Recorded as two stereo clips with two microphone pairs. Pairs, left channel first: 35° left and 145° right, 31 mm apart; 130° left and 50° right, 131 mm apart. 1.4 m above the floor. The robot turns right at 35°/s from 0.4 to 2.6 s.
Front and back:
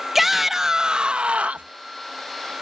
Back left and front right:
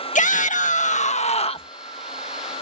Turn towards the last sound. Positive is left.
turn(degrees=-150)